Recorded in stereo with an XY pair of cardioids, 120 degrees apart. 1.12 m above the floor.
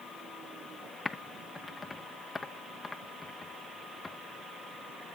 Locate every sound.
1.1 s typing on a keyboard: 20° left, 0.6 m